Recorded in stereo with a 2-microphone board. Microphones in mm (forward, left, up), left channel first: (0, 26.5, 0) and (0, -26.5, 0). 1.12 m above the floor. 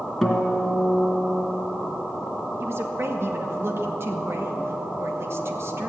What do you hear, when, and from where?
0.2 s a guitar: 5° left (ahead or behind), 2 m
2.6 s a woman speaking: 50° right (ahead or behind), 1.5 m